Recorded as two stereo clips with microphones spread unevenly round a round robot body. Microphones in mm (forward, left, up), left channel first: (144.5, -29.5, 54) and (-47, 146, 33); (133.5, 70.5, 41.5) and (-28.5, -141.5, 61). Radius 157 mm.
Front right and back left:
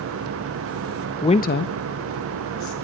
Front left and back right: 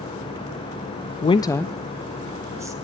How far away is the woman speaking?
About 0.5 m.